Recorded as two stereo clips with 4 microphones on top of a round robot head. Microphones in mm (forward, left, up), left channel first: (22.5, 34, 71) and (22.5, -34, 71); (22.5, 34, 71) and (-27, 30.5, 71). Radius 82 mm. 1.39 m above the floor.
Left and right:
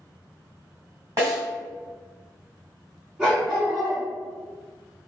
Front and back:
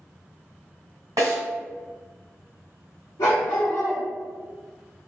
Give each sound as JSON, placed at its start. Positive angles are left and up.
{"t": 1.2, "sound": "a snare drum", "azimuth_deg": -145, "distance_m": 1.5}
{"t": 3.2, "sound": "a dog barking", "azimuth_deg": -5, "distance_m": 1.5}